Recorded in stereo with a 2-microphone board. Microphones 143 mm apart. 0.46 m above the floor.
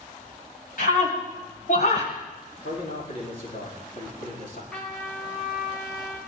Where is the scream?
70° left (ahead or behind), 2.5 m; by 2.1 s 60° left (ahead or behind), 2.5 m.